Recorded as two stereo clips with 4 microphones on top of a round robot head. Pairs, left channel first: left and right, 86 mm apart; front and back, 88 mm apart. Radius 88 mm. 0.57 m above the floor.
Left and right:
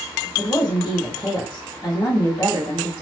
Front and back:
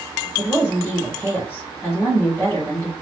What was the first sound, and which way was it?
A woman speaking, 70° left.